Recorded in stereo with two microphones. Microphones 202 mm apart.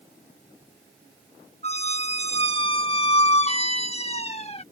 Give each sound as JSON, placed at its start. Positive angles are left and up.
{"t": 1.6, "sound": "a squeak", "side_deg": 30}